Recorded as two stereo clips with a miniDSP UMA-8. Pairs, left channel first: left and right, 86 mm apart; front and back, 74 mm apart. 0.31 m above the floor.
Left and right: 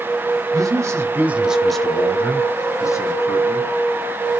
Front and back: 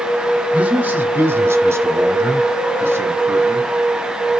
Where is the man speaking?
115° right, 1.3 m; by 3.7 s 120° left, 2 m.